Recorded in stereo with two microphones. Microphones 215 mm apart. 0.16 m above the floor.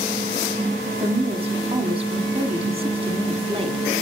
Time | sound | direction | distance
1.0 | a woman speaking | 25° right (ahead or behind) | 1.1 m